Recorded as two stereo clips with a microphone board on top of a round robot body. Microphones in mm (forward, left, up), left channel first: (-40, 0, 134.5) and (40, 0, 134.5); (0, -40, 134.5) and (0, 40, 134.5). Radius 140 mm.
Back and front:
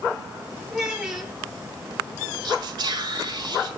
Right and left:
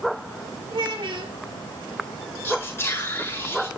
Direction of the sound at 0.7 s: 85° left.